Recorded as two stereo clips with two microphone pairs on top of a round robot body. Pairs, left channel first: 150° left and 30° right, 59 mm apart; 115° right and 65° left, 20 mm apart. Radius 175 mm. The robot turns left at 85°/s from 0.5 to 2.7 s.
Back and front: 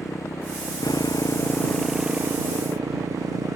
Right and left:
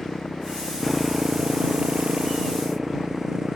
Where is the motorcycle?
Straight behind; by 3.6 s 5° right.